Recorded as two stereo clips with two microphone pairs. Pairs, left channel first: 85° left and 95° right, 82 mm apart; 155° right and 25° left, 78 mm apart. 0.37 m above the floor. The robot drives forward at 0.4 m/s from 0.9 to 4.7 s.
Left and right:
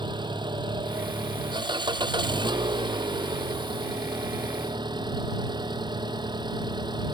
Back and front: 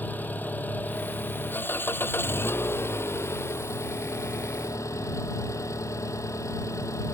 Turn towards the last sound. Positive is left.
turn(degrees=-110)